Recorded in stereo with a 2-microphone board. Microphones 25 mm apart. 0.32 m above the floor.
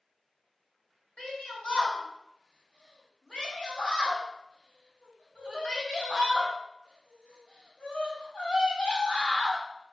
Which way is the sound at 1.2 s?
45° left (ahead or behind).